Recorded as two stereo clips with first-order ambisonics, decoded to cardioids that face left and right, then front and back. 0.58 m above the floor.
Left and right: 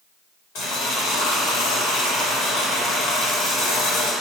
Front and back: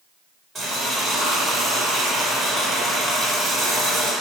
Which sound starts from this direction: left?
Boiling, at 0.6 s.